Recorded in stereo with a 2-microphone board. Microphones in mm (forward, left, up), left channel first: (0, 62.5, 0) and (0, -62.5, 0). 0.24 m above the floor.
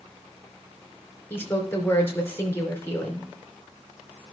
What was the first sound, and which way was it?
A woman speaking, 20° left (ahead or behind).